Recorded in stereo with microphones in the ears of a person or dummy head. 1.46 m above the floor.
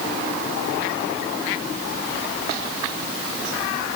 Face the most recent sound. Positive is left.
No sound to turn to.